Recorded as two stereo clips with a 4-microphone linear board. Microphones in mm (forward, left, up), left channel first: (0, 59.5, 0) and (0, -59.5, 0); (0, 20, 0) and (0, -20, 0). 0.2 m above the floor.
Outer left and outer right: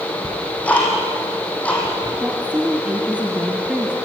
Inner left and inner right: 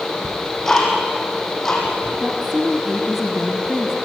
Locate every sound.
0.2 s ticking: 10° left (ahead or behind), 5.5 m
2.2 s a woman speaking: 10° right (ahead or behind), 1.7 m